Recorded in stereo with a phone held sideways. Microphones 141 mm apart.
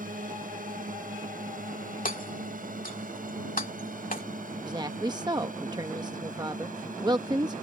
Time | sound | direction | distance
0.0 | a drone | 75° right (ahead or behind) | ?
2.0 | hammering | 80° left | ?
4.6 | a woman speaking | 30° right (ahead or behind) | ?